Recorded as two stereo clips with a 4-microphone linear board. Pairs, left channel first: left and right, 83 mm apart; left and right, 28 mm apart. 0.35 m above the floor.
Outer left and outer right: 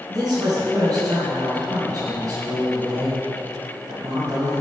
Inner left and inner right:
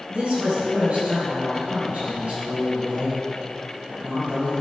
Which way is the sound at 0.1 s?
55° right (ahead or behind).